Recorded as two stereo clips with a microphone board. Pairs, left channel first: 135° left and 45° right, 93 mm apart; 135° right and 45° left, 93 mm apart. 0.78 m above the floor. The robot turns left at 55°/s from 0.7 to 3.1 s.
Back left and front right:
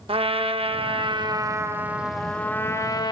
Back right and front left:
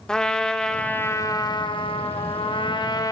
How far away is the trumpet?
About 0.7 m.